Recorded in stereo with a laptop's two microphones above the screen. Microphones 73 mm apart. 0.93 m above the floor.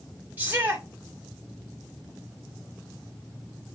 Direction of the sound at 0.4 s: 20° right (ahead or behind).